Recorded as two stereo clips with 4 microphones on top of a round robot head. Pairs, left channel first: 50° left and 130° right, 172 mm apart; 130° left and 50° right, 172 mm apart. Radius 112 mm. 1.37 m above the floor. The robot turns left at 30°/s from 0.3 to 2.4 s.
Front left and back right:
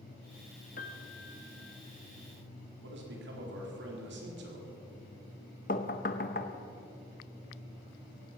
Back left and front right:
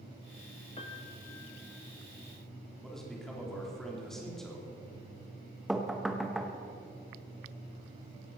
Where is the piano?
75° left, 0.9 m; by 1.8 s 45° left, 0.9 m.